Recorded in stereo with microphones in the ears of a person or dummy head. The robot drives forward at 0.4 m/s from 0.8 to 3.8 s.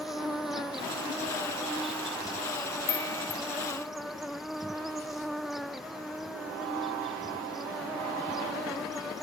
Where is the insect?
Centre (ahead or behind).